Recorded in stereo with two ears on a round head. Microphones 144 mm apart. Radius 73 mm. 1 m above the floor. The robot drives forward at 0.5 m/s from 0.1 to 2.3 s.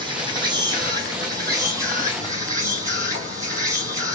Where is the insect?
30° right (ahead or behind), 2.5 m; by 4.2 s 20° right (ahead or behind), 3.5 m.